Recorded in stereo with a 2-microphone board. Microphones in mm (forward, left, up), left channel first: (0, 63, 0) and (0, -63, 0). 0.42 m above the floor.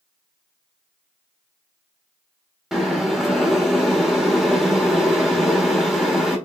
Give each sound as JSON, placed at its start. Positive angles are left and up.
{"t": 2.7, "sound": "boiling", "side_deg": -5, "distance_m": 1.3}